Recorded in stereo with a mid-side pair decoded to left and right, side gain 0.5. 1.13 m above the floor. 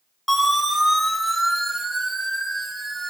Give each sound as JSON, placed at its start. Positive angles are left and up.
{"t": 0.3, "sound": "a siren", "azimuth_deg": 10, "distance_m": 5.5}